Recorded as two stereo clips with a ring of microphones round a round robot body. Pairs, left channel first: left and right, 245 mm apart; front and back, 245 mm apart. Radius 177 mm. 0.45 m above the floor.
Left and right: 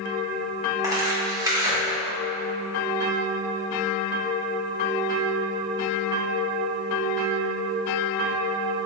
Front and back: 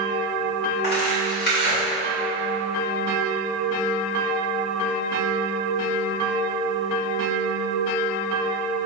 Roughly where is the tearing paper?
Ahead.